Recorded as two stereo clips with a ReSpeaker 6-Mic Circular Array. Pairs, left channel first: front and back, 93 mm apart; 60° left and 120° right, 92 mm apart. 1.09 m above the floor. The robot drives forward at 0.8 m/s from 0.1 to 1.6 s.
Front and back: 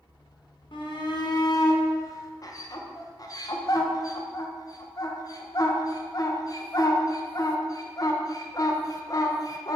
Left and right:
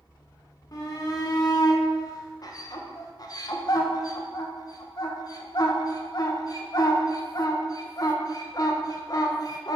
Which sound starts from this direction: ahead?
A shout, at 0.7 s.